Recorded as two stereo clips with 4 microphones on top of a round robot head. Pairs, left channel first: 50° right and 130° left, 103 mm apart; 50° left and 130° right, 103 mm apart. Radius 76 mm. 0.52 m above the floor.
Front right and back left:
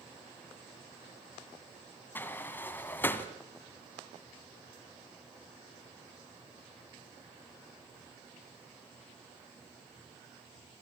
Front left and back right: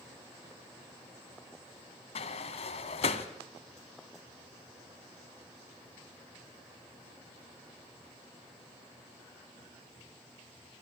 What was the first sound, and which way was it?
A sliding door, 20° left.